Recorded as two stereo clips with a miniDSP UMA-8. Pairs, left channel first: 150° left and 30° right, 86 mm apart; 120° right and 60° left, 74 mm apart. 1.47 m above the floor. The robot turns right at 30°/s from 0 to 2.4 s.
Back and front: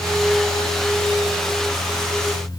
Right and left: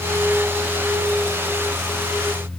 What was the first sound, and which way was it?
Only background noise.